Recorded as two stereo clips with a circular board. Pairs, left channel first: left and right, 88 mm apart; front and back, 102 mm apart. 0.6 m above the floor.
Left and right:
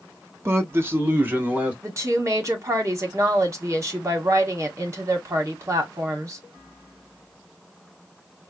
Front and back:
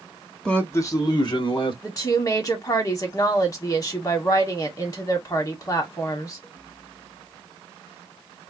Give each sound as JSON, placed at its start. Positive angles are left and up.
{"t": 0.5, "sound": "a man speaking", "azimuth_deg": -75, "distance_m": 0.8}
{"t": 1.8, "sound": "a woman speaking", "azimuth_deg": -45, "distance_m": 1.3}